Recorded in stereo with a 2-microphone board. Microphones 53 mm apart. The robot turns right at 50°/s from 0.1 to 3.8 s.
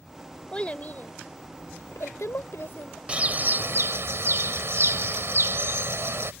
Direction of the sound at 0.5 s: 20° left (ahead or behind).